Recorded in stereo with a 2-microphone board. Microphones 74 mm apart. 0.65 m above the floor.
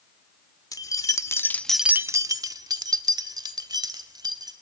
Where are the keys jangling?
55° left (ahead or behind), 1.6 m; by 4.5 s 70° right (ahead or behind), 3.5 m.